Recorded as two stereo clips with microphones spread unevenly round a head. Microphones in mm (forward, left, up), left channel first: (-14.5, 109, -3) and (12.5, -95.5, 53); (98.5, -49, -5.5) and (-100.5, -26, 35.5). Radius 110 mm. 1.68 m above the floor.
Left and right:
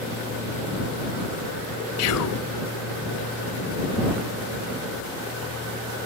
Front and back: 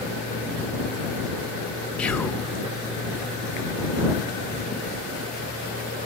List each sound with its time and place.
2.0 s whispering: 80° left